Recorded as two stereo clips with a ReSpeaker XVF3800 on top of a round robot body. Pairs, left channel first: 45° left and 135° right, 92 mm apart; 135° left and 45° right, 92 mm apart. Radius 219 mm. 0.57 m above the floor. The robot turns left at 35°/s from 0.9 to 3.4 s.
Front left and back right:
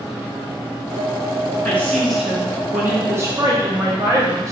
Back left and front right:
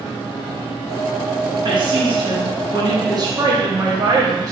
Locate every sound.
1.6 s a woman speaking: 25° right, 1.7 m; by 4.5 s 90° right, 1.7 m